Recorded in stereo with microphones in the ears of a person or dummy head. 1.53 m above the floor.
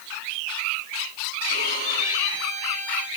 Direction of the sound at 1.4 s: 60° right (ahead or behind).